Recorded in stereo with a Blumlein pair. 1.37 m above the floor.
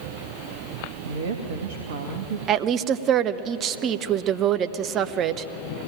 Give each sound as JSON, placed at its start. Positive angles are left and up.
{"t": 1.0, "sound": "a woman speaking", "azimuth_deg": -55, "distance_m": 1.8}
{"t": 2.5, "sound": "a woman speaking", "azimuth_deg": -30, "distance_m": 0.8}